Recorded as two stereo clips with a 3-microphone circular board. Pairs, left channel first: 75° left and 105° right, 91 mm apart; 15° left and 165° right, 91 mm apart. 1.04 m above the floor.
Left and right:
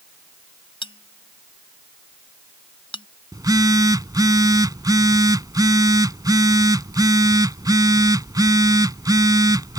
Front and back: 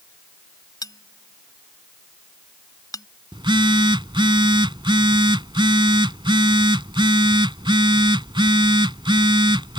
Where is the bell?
60° left.